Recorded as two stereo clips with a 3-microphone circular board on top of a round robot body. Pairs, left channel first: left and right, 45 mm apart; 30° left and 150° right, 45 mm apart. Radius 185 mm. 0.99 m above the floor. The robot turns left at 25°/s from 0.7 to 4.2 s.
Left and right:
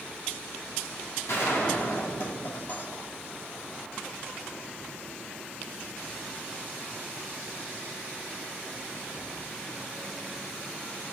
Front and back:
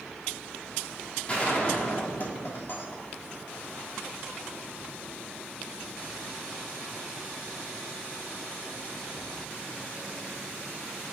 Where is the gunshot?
90° left, 2 m; by 3.5 s 35° left, 2 m.